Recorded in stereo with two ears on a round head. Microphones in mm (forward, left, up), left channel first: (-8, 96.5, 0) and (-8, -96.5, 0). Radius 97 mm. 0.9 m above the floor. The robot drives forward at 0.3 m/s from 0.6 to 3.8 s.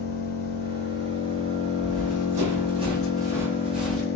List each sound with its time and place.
0.0 s an engine running: 45° left (ahead or behind), 0.8 m; by 4.2 s 50° left (ahead or behind), 0.7 m
1.8 s running footsteps: 45° right (ahead or behind), 2 m; by 4.1 s 5° left (ahead or behind), 1.6 m